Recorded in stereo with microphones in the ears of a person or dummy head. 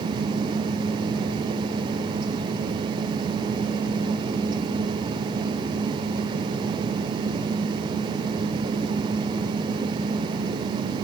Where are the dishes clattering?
No dishes clattering in this recording.